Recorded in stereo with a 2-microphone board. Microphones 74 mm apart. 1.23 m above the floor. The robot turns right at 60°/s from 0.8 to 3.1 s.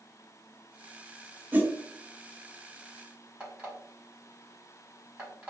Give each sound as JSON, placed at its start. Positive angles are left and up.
{"t": 1.5, "sound": "a whoosh", "side_deg": -25, "distance_m": 0.6}
{"t": 3.4, "sound": "an alarm clock", "side_deg": -20, "distance_m": 1.8}